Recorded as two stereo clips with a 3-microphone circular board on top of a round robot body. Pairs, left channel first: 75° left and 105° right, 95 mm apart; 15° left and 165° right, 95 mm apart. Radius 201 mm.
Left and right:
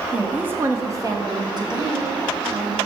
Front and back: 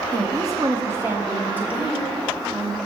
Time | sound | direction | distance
0.1 | a woman speaking | straight behind | 1.5 m